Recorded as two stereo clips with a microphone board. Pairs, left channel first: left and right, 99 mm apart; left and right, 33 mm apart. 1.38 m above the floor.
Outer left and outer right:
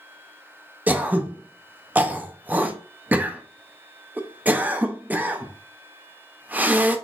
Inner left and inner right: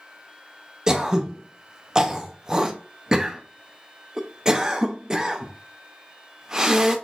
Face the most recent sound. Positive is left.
turn(degrees=-15)  # may be behind; listen again after turning